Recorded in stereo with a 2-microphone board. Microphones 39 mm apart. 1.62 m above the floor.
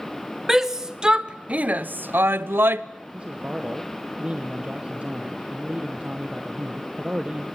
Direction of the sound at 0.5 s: 10° right (ahead or behind).